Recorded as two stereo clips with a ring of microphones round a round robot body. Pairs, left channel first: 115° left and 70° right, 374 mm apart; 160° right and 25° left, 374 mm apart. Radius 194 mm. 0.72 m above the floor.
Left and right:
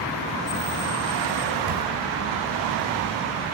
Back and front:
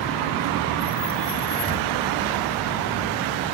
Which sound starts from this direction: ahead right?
A camera shutter, at 1.7 s.